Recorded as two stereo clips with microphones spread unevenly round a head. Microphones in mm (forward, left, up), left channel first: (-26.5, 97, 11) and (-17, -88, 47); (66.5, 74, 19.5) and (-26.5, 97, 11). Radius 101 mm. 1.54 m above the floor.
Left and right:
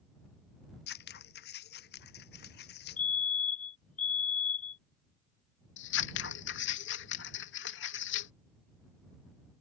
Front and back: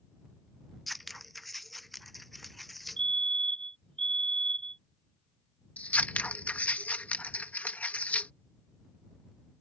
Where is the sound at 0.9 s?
75° left.